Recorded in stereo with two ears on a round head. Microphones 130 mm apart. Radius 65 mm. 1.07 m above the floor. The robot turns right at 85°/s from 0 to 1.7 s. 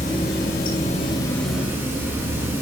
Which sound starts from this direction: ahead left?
Running water, at 0.0 s.